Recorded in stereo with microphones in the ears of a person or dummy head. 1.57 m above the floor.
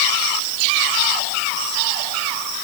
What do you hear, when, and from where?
Only background noise.